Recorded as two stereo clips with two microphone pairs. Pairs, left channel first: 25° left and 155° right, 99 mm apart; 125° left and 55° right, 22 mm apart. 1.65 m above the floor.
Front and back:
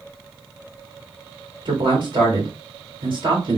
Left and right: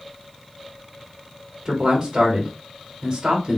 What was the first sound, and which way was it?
A man speaking, 120° right.